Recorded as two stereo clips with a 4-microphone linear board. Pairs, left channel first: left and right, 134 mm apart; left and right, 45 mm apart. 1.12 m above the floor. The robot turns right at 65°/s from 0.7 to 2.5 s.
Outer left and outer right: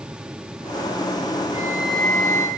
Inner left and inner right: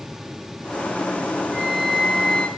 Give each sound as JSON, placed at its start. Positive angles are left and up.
{"t": 1.5, "sound": "a flute", "azimuth_deg": -30, "distance_m": 1.8}